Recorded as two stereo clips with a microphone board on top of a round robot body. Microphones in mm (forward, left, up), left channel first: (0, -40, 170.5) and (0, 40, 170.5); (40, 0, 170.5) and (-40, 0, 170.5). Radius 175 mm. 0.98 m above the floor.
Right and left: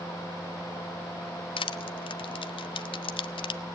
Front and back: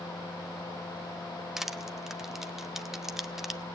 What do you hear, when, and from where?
1.6 s crushing: 95° right, 0.5 m